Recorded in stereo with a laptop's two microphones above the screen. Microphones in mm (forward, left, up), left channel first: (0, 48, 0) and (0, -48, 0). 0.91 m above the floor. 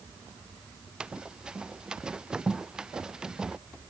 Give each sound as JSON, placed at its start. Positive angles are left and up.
{"t": 1.0, "sound": "running footsteps", "side_deg": -10}